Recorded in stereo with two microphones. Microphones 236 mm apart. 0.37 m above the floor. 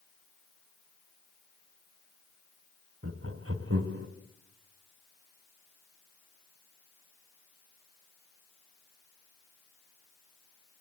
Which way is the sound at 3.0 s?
55° right (ahead or behind).